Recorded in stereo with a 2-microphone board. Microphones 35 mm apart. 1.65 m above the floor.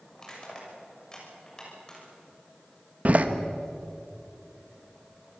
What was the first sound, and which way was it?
Crushing, 20° left (ahead or behind).